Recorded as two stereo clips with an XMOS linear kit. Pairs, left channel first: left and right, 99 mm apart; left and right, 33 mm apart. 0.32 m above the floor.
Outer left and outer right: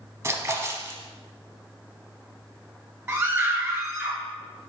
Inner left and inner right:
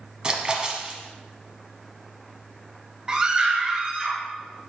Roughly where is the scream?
Right.